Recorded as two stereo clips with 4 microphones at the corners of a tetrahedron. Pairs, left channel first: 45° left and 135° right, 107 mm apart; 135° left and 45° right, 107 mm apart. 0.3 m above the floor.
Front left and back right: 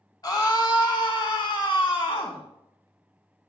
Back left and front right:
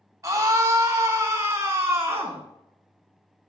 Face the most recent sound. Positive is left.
turn(degrees=15)